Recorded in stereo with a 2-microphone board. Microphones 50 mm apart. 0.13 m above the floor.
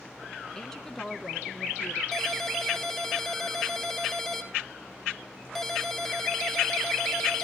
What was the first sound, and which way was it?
A woman speaking, 15° left (ahead or behind).